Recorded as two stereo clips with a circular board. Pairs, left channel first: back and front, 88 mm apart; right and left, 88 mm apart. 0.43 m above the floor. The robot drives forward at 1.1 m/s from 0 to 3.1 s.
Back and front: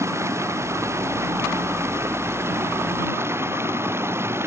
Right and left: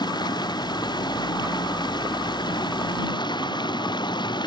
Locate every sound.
0.0 s running water: 55° right; by 4.5 s 60° right